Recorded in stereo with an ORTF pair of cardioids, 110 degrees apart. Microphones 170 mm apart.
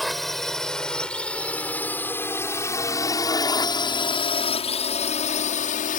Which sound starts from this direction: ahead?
A drone, at 0.0 s.